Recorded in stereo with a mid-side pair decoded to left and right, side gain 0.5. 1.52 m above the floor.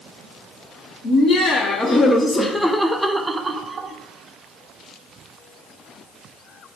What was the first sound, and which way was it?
Laughter, 55° left.